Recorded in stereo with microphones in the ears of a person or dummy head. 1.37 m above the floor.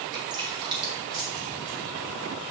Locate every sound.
0.1 s dripping: 20° right (ahead or behind), 3.5 m